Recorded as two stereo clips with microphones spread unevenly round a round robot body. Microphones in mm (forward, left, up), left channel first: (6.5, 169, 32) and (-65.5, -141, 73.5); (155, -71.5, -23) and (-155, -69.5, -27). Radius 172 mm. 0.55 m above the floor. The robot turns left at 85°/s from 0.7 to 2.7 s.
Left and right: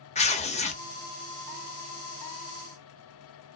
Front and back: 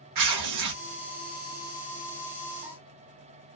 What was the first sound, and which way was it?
Tearing paper, 145° left.